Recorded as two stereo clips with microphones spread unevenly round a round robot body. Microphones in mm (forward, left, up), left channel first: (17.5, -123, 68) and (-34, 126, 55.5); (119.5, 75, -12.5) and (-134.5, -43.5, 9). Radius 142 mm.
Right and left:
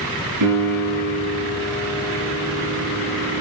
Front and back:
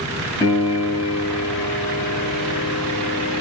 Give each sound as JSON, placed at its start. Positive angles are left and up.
{"t": 0.4, "sound": "a piano", "azimuth_deg": 100, "distance_m": 5.0}